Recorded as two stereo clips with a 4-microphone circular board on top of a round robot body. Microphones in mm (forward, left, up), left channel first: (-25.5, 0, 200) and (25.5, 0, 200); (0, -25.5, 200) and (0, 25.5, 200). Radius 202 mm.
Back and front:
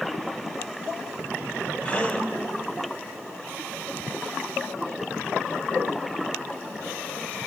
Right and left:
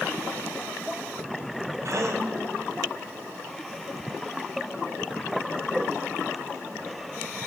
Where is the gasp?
110° left, 2 m.